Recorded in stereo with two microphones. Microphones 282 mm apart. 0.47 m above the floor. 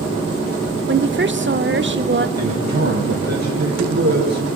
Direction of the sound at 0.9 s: 40° right (ahead or behind).